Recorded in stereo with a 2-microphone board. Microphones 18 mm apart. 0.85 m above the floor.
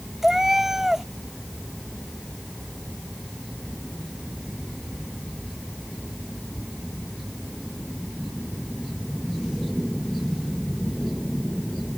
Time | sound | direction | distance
0.2 | a cat meowing | 25° right (ahead or behind) | ?